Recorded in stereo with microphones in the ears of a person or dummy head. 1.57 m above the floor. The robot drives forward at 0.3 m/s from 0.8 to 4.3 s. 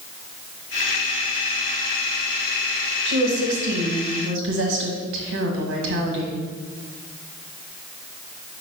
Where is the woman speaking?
75° right (ahead or behind), 1.5 m; by 6.4 s 65° right (ahead or behind), 1.6 m.